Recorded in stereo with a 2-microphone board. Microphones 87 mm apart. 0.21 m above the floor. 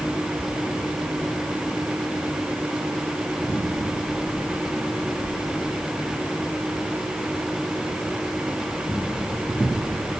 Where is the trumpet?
No trumpet in this recording.